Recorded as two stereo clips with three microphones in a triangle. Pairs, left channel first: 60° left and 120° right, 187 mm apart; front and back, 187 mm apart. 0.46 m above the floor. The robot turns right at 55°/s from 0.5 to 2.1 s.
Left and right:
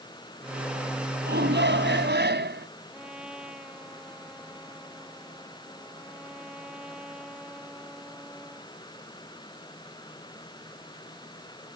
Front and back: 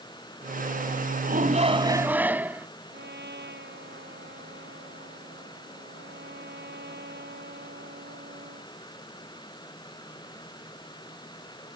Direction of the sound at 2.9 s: 155° left.